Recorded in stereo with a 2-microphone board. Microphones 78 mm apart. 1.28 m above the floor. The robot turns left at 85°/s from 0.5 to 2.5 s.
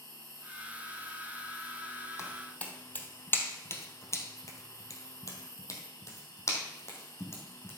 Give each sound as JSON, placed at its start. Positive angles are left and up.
{"t": 0.0, "sound": "an insect", "azimuth_deg": -85, "distance_m": 2.5}
{"t": 2.2, "sound": "footsteps", "side_deg": 35, "distance_m": 2.5}